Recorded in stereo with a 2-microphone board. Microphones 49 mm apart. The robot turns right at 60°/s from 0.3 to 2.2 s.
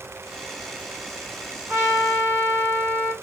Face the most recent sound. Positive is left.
turn(degrees=-80)